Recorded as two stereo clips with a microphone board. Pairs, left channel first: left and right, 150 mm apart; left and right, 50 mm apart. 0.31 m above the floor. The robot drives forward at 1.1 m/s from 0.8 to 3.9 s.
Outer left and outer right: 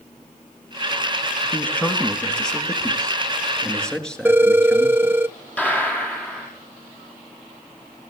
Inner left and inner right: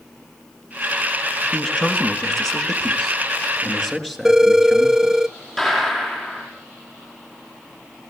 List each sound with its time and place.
1.5 s a man speaking: 10° left (ahead or behind), 2.5 m; by 5.2 s 5° left (ahead or behind), 5 m
4.2 s a phone ringing: 15° right (ahead or behind), 0.6 m
5.6 s a gunshot: 10° left (ahead or behind), 6.5 m